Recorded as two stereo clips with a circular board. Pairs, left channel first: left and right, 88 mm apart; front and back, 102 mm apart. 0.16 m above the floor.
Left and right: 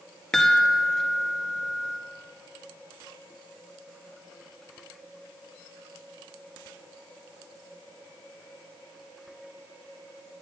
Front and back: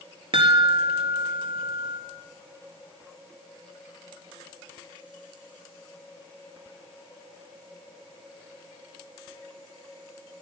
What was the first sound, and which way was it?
A chime, 175° left.